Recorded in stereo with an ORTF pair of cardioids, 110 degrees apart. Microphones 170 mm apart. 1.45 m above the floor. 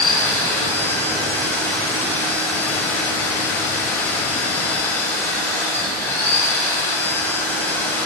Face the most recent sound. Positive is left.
turn(degrees=15)